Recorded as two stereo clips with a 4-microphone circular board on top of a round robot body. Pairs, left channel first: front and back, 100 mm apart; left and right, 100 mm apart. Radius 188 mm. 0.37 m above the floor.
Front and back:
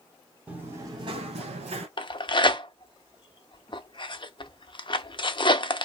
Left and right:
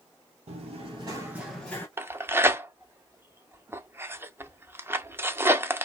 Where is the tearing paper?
25° right, 0.7 m.